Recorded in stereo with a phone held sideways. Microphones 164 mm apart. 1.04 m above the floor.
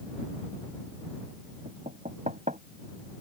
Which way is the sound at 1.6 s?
50° right (ahead or behind).